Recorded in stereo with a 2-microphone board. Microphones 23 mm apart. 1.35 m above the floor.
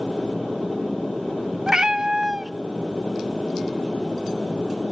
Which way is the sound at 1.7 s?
30° right (ahead or behind).